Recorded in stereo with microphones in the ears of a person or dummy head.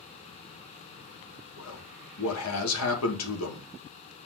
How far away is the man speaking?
About 3.5 m.